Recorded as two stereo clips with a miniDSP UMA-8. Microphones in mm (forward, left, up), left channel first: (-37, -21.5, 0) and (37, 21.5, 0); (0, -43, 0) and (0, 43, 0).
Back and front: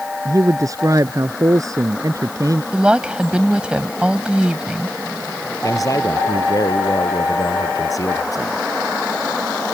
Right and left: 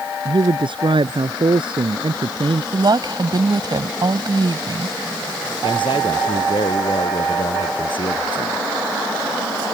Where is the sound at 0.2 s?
80° left.